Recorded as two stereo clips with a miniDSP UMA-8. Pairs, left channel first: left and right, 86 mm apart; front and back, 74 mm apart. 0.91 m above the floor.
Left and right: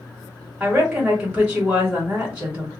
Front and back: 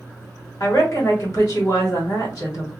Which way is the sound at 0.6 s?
30° right.